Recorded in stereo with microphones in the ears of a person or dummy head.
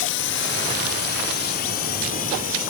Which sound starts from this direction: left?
A drone, at 0.0 s.